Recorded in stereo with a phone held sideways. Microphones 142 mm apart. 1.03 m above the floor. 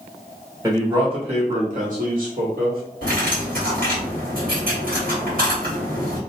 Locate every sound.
0.6 s a man speaking: 20° right (ahead or behind), 1.0 m; by 2.8 s 75° right (ahead or behind), 1.6 m
3.0 s cutlery clinking: 75° right (ahead or behind), 1.5 m